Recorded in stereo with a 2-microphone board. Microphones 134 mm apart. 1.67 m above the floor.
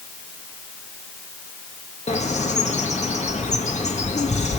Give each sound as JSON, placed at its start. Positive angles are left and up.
{"t": 2.1, "sound": "a bird", "side_deg": 60, "distance_m": 2.0}